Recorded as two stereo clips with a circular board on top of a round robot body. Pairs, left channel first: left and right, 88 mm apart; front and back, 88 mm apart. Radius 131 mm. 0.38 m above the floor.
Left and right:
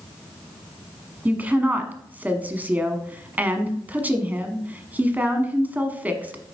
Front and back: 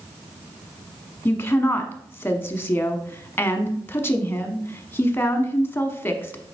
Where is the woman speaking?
40° right, 1.1 m.